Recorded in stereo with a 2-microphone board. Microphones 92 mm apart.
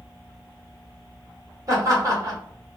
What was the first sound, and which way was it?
Laughter, 40° right (ahead or behind).